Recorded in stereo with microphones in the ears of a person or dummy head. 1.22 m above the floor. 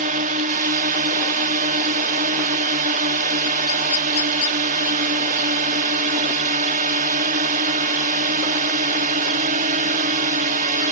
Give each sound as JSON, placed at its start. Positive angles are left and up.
{"t": 0.0, "sound": "a drone", "side_deg": -40}